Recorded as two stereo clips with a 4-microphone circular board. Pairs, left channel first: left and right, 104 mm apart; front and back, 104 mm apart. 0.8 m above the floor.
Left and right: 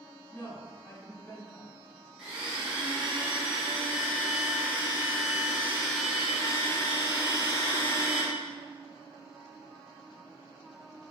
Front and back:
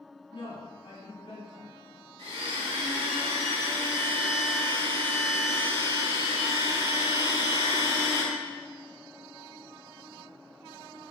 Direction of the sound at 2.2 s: 175° right.